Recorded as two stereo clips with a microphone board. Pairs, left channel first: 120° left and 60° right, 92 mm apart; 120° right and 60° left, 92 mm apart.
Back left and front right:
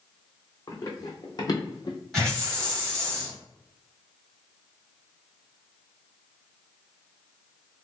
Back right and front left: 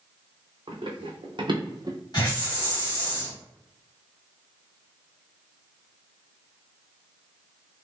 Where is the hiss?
155° right, 1.9 m.